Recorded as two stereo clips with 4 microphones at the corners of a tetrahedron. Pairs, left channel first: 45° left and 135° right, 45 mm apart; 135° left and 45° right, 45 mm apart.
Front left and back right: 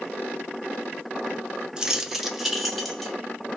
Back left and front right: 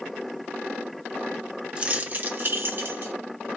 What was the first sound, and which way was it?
Keys jangling, 75° right.